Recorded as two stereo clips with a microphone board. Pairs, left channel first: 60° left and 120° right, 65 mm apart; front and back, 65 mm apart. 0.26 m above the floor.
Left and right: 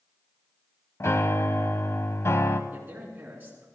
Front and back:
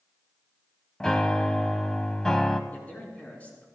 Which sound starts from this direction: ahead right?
A man speaking, at 2.7 s.